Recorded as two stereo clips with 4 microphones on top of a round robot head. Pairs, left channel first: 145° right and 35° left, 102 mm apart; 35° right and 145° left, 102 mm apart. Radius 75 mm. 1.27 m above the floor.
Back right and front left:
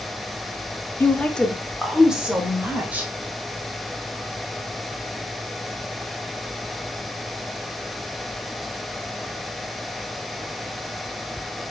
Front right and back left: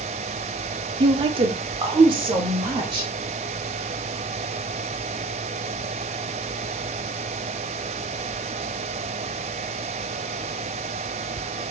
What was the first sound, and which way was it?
A woman speaking, 150° left.